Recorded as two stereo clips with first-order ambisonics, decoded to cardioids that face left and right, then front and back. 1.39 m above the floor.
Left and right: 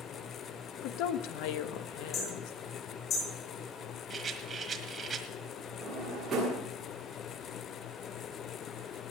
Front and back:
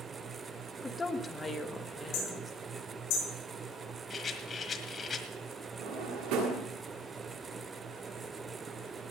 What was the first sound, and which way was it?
A woman speaking, 75° left.